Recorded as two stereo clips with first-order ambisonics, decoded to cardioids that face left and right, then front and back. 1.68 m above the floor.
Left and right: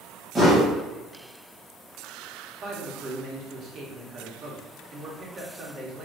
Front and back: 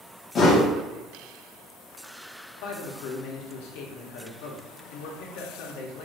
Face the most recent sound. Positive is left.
turn(degrees=-25)